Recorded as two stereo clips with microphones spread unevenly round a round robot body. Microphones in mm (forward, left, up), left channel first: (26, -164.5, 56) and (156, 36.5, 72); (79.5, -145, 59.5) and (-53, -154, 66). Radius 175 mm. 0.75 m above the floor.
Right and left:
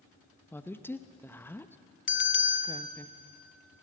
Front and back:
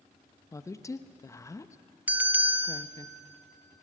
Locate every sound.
0.5 s a woman speaking: 50° right, 0.9 m
2.1 s a bell: 95° right, 1.1 m